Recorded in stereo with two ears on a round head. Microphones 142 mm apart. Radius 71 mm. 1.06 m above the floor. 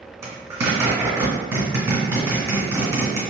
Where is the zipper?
20° right (ahead or behind), 1.9 m.